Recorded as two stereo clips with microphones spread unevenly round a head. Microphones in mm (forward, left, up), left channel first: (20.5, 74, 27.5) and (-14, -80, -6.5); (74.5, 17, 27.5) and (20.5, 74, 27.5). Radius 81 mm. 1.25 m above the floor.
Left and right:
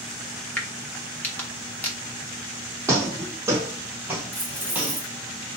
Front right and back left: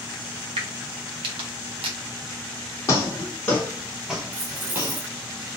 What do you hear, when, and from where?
0.6 s a crack: 155° left, 1.1 m
2.9 s footsteps: 20° right, 1.5 m; by 5.0 s 160° left, 1.4 m
4.3 s keys jangling: 160° left, 1.0 m